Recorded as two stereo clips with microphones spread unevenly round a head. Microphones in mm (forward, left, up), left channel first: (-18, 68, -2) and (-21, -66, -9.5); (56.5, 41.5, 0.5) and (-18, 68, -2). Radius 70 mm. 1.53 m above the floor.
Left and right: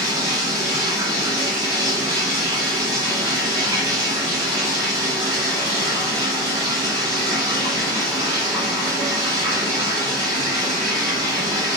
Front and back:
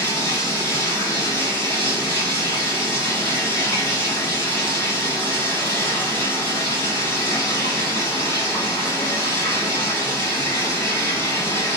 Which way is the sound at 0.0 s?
30° right.